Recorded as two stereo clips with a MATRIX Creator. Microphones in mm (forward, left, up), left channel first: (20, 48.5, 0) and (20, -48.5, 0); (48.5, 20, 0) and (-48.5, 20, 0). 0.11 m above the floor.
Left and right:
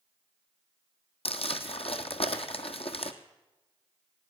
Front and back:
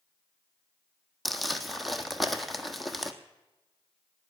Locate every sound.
1.2 s crumpling: 90° left, 1.4 m